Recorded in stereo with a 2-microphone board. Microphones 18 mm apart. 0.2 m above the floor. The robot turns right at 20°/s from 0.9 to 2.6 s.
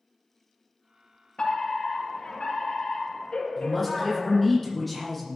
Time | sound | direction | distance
1.4 | a fire alarm | 55° left (ahead or behind) | 7.5 m
3.6 | a man speaking | 10° left (ahead or behind) | 10 m